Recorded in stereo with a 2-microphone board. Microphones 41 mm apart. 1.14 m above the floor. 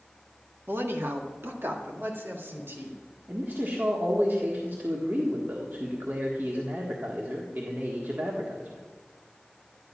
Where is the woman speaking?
75° right (ahead or behind), 1.5 m; by 3.0 s 70° right (ahead or behind), 3 m.